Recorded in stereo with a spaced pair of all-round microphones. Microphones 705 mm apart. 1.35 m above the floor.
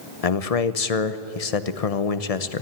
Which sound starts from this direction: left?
A man speaking, at 0.2 s.